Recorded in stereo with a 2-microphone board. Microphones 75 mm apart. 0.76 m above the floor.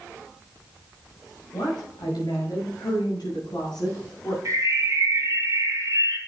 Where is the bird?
55° right (ahead or behind), 2.5 m.